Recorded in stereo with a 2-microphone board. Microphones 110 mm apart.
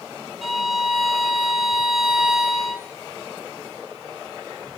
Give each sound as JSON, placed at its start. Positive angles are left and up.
{"t": 0.4, "sound": "a violin", "side_deg": 0, "distance_m": 1.3}